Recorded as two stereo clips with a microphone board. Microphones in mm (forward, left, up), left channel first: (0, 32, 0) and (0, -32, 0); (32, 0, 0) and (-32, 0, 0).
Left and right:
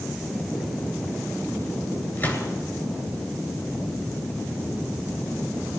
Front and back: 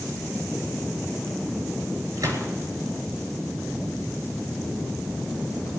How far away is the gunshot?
About 10 m.